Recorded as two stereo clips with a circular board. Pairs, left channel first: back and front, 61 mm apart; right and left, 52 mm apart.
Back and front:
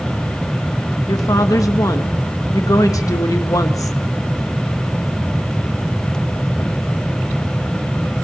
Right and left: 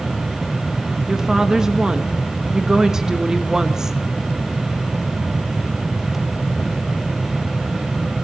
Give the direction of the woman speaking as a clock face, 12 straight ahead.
6 o'clock.